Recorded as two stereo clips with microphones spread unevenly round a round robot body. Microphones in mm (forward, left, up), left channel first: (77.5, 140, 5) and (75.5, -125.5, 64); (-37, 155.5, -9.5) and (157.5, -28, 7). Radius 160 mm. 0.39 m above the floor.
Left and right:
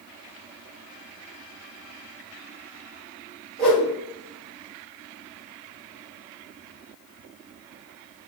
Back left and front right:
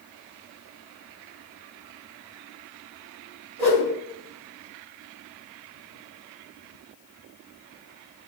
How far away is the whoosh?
About 2.0 m.